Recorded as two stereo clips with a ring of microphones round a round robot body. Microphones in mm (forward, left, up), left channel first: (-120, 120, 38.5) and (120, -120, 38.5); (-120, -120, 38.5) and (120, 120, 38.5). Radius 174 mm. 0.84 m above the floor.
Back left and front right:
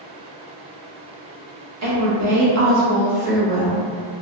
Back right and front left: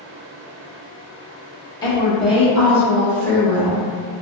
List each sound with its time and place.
1.8 s a woman speaking: 60° right, 1.1 m; by 3.8 s 5° right, 1.5 m